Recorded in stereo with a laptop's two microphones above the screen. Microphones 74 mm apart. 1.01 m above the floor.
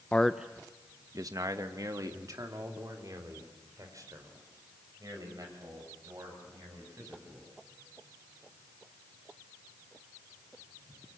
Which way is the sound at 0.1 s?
15° left (ahead or behind).